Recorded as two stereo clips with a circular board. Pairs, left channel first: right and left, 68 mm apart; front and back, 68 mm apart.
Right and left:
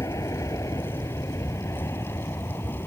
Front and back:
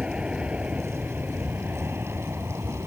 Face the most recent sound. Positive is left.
turn(degrees=-135)